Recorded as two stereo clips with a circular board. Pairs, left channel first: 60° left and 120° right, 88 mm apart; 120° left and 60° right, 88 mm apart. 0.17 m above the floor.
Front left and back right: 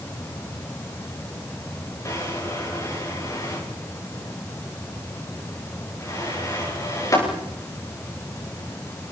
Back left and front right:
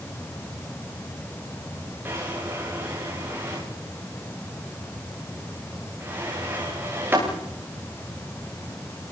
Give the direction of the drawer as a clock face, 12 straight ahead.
12 o'clock.